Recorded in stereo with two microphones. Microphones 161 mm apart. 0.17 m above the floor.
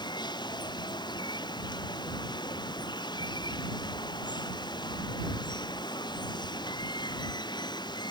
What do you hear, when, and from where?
0.0 s running water: 30° left (ahead or behind)